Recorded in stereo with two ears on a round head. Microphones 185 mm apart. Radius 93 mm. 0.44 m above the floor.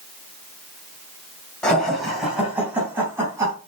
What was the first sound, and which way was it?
Laughter, 5° left (ahead or behind).